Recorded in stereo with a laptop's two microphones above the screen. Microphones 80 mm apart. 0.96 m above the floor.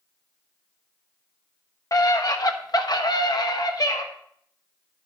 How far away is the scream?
About 1.4 m.